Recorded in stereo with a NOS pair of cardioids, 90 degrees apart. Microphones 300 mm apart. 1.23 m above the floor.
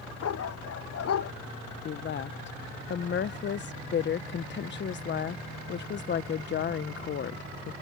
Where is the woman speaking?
40° left.